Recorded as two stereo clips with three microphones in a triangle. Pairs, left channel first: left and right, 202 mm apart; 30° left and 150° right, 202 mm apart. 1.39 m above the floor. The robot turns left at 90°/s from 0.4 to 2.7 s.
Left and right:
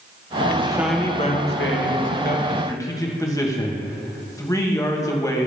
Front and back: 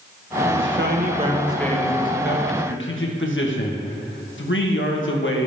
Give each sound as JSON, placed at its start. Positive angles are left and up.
{"t": 0.6, "sound": "a man speaking", "azimuth_deg": -150, "distance_m": 1.5}